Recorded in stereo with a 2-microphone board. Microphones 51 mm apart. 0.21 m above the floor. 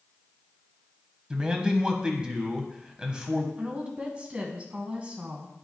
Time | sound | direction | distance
1.3 | a man speaking | 15° right (ahead or behind) | 1.2 m
3.6 | a woman speaking | 25° right (ahead or behind) | 1.6 m